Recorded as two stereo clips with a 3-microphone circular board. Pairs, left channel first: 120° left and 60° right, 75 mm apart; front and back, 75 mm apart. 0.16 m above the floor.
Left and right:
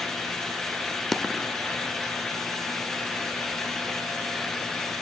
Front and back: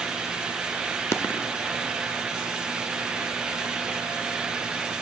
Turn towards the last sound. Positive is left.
turn(degrees=35)